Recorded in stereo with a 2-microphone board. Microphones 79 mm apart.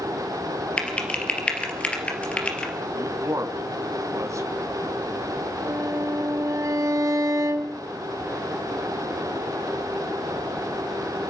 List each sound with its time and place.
0.8 s typing on a keyboard: 15° left (ahead or behind), 3 m
2.9 s a man speaking: 40° right (ahead or behind), 2 m
5.6 s a violin: 45° right (ahead or behind), 1.5 m